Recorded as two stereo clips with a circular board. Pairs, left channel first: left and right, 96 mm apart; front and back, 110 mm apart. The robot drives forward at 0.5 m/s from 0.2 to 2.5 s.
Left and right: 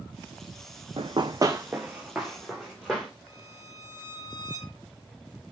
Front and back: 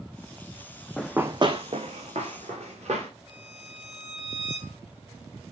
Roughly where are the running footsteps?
Right.